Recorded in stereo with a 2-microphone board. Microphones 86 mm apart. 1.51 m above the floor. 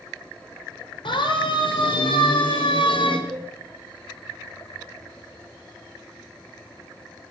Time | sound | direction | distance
1.1 | a siren | 75° left (ahead or behind) | 7 m
3.3 | a cowbell | 10° left (ahead or behind) | 3 m